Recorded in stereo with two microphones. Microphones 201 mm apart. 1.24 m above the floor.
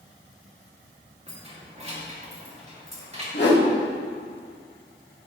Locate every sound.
1.3 s keys jangling: 30° right (ahead or behind), 2 m
3.3 s a whoosh: 60° left (ahead or behind), 2 m